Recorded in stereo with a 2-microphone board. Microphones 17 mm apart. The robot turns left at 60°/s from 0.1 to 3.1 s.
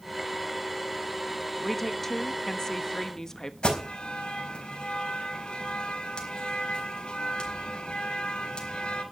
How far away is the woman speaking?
About 1.1 m.